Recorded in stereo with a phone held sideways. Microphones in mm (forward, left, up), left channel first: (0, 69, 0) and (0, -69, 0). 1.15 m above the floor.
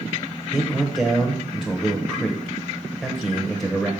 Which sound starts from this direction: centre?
A man speaking, at 0.5 s.